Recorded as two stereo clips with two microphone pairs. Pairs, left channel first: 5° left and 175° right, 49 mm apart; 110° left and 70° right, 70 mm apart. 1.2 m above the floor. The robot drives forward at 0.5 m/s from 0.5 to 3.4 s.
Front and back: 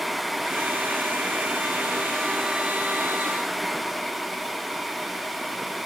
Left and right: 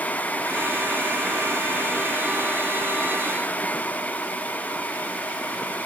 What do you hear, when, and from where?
Only background noise.